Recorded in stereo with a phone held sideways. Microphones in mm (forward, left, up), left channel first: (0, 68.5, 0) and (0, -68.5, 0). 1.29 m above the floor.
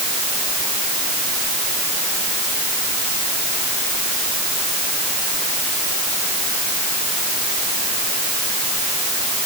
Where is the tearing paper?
I don't hear tearing paper.